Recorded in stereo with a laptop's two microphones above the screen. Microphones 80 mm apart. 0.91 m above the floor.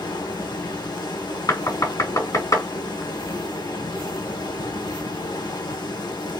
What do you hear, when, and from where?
0.0 s running water: 65° left (ahead or behind), 1.3 m
1.5 s knocking: 45° left (ahead or behind), 2 m